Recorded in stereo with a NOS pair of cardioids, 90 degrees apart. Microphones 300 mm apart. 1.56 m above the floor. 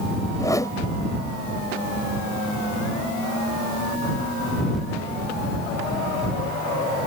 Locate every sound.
0.4 s a whoosh: 10° left